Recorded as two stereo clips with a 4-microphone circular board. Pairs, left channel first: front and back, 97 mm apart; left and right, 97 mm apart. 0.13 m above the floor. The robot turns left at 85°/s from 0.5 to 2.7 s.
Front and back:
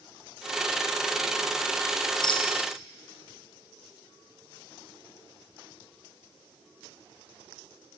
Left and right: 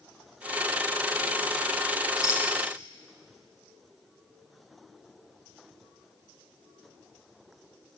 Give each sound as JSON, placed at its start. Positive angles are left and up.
{"t": 2.2, "sound": "a rattle", "azimuth_deg": 45, "distance_m": 5.5}